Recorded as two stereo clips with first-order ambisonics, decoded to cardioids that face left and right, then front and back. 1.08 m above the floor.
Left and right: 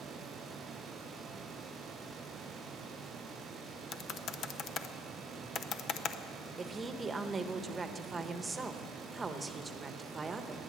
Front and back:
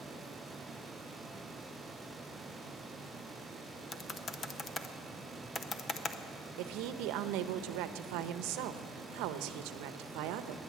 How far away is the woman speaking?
About 0.8 m.